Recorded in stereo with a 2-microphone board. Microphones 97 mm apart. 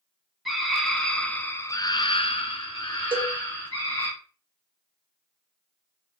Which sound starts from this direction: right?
A cowbell, at 3.1 s.